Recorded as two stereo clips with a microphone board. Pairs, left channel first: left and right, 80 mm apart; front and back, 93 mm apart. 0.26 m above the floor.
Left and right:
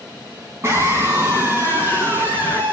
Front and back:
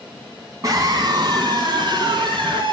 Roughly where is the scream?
Behind right.